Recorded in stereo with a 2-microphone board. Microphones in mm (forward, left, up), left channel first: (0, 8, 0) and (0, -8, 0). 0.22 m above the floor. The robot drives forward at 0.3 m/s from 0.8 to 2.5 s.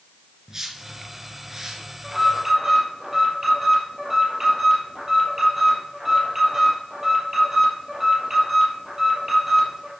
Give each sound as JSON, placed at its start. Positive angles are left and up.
{"t": 0.5, "sound": "a whoosh", "side_deg": -30, "distance_m": 3.5}
{"t": 2.0, "sound": "an alarm", "side_deg": -20, "distance_m": 5.5}